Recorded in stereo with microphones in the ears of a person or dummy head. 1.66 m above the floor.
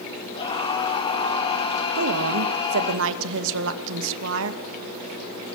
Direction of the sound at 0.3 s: 30° left (ahead or behind).